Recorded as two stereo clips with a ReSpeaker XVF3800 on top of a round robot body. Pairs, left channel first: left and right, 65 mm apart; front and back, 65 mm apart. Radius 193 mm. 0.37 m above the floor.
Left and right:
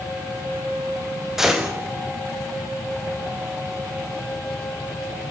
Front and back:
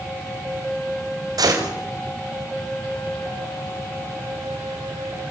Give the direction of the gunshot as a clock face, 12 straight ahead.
6 o'clock.